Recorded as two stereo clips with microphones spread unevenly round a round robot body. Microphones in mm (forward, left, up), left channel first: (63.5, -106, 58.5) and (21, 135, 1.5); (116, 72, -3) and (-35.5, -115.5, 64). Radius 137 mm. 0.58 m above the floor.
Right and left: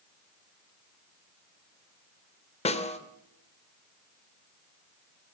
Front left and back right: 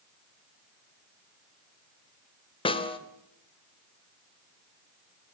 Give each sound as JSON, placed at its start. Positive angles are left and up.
{"t": 2.6, "sound": "a snare drum", "azimuth_deg": -10, "distance_m": 2.0}